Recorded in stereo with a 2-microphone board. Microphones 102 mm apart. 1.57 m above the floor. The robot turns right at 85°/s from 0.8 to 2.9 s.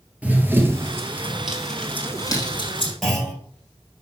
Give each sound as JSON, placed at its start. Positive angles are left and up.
{"t": 0.2, "sound": "running footsteps", "side_deg": -15, "distance_m": 1.7}
{"t": 3.0, "sound": "a clunk", "side_deg": 0, "distance_m": 4.5}